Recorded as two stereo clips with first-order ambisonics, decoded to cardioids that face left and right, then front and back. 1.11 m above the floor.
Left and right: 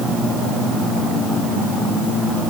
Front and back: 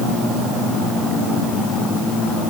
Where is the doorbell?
No doorbell in this recording.